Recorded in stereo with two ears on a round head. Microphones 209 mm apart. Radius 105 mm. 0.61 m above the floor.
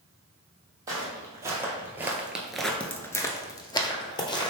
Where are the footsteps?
15° right (ahead or behind), 1.3 m; by 4.5 s 20° left (ahead or behind), 1.1 m.